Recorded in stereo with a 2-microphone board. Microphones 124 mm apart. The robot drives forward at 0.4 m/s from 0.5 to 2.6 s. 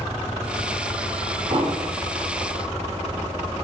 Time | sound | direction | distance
1.5 | an explosion | 50° right (ahead or behind) | 4 m